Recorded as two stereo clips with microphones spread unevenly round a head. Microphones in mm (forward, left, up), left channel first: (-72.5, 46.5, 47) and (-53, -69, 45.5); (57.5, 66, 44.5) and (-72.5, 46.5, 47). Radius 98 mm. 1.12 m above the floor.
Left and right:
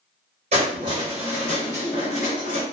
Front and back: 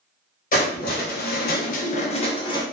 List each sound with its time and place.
0.5 s keys jangling: 30° right, 0.7 m; by 2.6 s 65° left, 0.8 m